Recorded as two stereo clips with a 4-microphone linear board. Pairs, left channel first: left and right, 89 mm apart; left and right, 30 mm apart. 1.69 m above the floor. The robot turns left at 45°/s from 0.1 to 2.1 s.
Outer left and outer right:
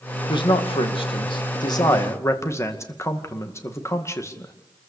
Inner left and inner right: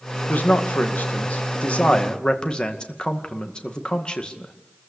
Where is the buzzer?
No buzzer in this recording.